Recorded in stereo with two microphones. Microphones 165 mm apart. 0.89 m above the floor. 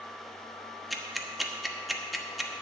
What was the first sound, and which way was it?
Ticking, centre (ahead or behind).